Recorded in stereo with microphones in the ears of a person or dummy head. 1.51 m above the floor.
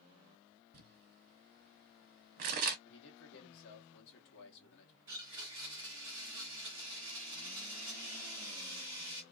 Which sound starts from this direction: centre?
A blender, at 5.1 s.